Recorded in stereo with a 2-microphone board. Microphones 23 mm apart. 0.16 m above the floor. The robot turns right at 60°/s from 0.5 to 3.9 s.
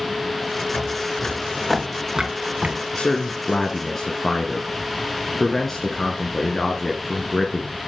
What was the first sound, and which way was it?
Footsteps, 60° left (ahead or behind).